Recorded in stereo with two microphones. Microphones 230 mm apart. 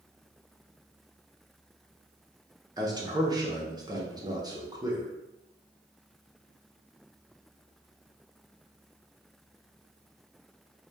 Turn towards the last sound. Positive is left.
turn(degrees=-15)  # may be behind; listen again after turning